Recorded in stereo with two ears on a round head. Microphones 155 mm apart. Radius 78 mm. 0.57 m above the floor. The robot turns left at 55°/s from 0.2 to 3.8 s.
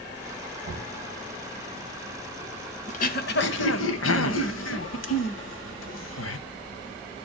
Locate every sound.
0.6 s knocking: 60° right (ahead or behind), 2.5 m; by 1.0 s 75° right (ahead or behind), 2.5 m
2.9 s throat clearing: 45° left (ahead or behind), 1.1 m; by 6.4 s 85° left, 1.1 m